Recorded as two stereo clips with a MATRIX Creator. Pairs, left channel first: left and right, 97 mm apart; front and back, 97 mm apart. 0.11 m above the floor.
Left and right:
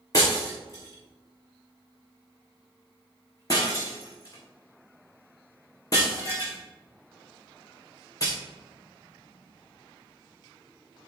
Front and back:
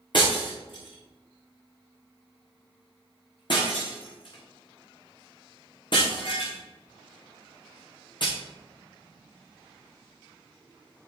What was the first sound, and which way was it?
Breaking glass, 35° left.